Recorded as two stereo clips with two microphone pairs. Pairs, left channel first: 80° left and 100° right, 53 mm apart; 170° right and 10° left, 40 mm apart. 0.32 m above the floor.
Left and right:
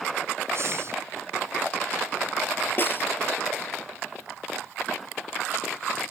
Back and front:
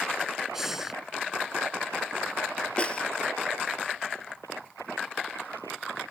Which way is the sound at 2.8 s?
130° left.